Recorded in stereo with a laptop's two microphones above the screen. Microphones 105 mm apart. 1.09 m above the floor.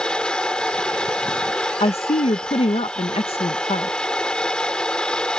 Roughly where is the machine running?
Centre.